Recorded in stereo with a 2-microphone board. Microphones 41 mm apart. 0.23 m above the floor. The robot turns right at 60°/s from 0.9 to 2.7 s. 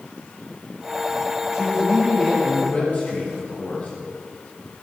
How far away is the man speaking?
About 3 m.